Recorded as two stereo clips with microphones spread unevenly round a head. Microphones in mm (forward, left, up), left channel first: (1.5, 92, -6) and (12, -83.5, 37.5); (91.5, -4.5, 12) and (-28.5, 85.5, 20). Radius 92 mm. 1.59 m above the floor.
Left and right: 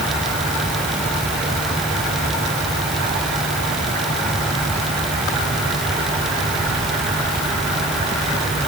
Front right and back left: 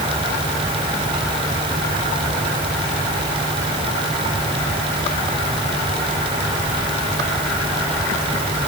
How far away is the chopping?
No chopping in this recording.